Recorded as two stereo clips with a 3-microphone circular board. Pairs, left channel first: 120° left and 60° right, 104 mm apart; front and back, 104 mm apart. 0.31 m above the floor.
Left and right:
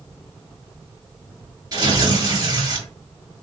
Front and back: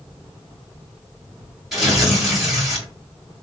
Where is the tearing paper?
95° right, 2.0 m.